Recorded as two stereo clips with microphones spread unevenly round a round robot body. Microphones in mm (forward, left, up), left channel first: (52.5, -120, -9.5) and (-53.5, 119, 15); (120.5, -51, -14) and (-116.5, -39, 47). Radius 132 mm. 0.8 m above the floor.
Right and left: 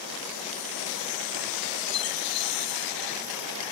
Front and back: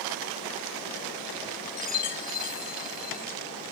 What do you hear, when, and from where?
1.8 s a chime: 60° right